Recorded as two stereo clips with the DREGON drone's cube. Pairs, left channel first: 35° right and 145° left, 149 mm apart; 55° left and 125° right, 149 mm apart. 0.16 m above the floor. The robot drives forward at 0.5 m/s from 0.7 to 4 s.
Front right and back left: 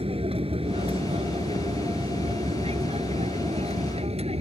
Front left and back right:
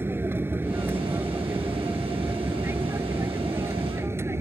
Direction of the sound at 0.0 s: 165° left.